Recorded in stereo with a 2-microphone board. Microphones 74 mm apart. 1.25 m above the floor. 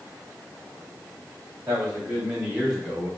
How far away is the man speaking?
About 2.5 m.